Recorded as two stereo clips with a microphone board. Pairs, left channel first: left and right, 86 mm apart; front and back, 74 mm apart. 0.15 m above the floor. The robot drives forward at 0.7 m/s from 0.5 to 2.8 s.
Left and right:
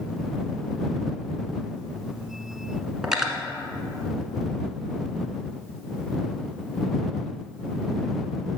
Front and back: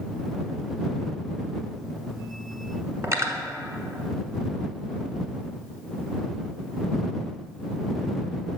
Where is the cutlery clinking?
170° right, 1.1 m.